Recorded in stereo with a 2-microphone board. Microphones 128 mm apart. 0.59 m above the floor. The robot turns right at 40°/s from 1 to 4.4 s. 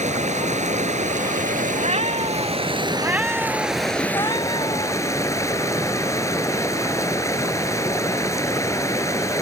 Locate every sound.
0.0 s running water: 115° right; by 9.4 s 25° left
1.8 s a cat meowing: 65° right; by 5.0 s 40° left